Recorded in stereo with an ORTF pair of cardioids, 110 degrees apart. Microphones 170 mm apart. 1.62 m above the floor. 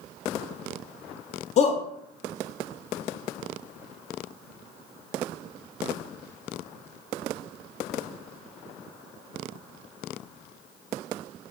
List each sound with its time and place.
1.6 s a shout: 40° left, 0.7 m